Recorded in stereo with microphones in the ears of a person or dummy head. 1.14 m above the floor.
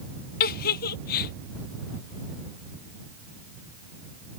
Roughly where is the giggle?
Left.